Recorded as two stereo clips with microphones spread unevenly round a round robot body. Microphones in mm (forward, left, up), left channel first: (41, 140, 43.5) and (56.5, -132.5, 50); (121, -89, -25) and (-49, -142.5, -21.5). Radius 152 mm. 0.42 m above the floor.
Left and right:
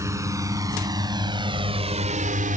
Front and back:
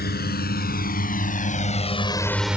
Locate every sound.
0.0 s a drone: 10° right; by 2.6 s 95° right